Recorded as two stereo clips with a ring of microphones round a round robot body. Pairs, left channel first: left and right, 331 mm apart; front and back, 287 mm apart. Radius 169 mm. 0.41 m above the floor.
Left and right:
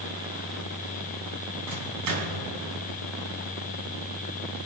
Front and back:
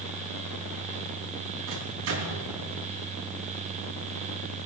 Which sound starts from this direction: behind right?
A microwave, at 1.7 s.